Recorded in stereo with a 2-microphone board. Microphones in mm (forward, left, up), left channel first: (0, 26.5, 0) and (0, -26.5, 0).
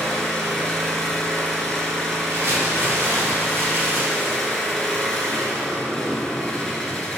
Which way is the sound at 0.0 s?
10° left (ahead or behind).